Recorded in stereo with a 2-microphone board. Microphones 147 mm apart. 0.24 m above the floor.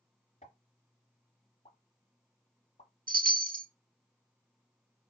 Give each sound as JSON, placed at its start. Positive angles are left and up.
{"t": 0.4, "sound": "a pop", "side_deg": 50, "distance_m": 1.3}
{"t": 3.1, "sound": "a chime", "side_deg": -70, "distance_m": 0.5}